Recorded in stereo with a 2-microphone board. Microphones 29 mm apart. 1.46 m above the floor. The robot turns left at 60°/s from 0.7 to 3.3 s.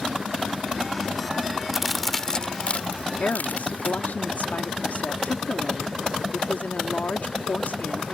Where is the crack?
20° right (ahead or behind); by 4.0 s 80° left.